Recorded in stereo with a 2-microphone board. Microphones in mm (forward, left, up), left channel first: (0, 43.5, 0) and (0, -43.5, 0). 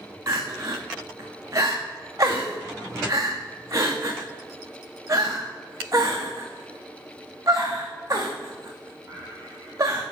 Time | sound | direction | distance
0.3 | crying | 40° right (ahead or behind) | 1.9 m